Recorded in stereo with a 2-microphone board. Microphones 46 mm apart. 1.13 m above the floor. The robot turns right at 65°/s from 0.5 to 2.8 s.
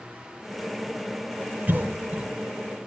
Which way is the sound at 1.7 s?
40° right (ahead or behind).